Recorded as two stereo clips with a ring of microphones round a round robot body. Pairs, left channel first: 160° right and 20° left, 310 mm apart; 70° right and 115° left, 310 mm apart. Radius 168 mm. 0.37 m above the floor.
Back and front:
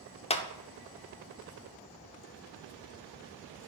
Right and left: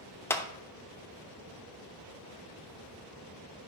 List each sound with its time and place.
0.3 s a clap: 135° right, 0.7 m